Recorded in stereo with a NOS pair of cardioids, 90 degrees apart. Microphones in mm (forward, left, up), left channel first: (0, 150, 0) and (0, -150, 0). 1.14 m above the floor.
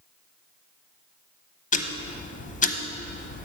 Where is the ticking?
25° left, 0.7 m.